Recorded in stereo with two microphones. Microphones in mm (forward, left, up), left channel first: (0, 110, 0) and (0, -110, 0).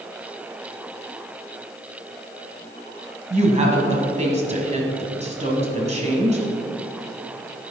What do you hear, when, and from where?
3.3 s a woman speaking: 30° right (ahead or behind), 1.7 m